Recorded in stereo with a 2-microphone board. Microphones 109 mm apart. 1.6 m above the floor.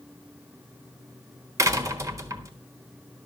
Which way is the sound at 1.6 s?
25° right (ahead or behind).